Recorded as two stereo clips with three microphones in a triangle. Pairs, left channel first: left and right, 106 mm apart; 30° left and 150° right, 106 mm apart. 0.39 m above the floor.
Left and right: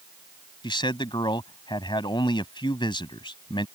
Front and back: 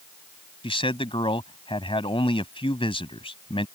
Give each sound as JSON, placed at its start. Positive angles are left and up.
{"t": 0.6, "sound": "a man speaking", "azimuth_deg": 55}